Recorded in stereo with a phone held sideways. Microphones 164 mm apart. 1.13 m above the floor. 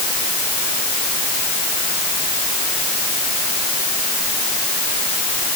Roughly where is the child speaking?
I don't hear a child speaking.